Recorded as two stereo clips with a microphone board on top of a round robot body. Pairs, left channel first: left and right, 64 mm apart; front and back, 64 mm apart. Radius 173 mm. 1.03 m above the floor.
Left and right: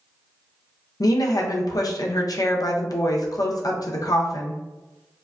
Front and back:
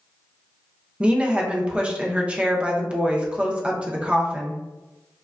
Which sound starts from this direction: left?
A woman speaking, at 1.0 s.